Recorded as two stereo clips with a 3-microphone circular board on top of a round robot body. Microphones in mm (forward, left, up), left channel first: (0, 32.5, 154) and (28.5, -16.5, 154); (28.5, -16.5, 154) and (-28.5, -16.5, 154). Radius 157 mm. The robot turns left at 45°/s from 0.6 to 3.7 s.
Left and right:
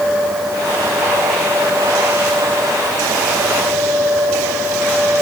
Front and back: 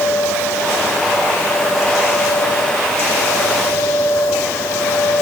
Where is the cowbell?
I don't hear a cowbell.